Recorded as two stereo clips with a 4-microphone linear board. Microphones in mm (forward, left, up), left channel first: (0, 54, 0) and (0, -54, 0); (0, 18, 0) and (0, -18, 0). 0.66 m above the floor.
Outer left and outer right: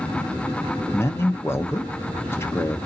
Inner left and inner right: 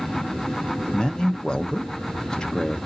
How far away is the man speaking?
About 0.6 m.